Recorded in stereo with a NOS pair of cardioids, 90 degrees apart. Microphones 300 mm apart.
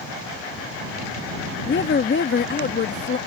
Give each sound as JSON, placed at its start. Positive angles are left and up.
{"t": 1.7, "sound": "a woman speaking", "azimuth_deg": 35}